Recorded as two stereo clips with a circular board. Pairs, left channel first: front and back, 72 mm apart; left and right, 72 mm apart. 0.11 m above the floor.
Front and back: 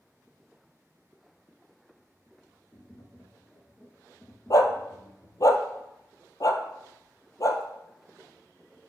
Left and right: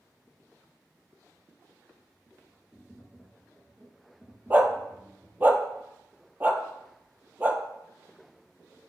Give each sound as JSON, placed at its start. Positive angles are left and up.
{"t": 2.7, "sound": "tapping", "azimuth_deg": -35, "distance_m": 1.3}
{"t": 4.5, "sound": "a dog barking", "azimuth_deg": -30, "distance_m": 0.8}